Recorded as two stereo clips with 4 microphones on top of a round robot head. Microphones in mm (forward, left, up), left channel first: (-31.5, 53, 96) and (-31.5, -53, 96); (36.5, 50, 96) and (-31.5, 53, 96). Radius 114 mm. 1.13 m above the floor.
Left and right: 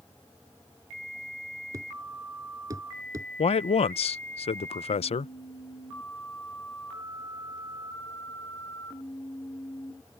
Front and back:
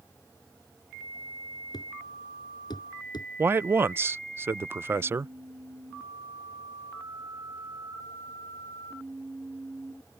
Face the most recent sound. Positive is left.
turn(degrees=120)